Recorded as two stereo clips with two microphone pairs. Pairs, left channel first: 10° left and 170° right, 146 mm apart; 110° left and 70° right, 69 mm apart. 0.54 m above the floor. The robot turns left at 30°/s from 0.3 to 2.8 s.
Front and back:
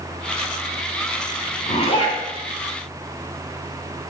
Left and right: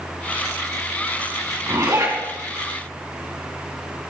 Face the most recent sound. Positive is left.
turn(degrees=-65)